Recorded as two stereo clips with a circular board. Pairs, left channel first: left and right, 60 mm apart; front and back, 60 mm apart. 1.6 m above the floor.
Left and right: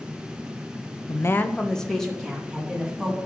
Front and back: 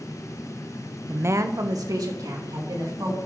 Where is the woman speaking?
110° left, 0.5 m; by 3.2 s 175° right, 3.5 m.